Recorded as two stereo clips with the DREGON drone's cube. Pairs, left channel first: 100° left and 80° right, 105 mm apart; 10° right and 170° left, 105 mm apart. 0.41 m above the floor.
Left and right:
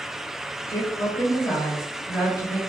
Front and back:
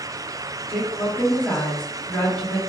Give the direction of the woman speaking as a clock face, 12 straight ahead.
10 o'clock.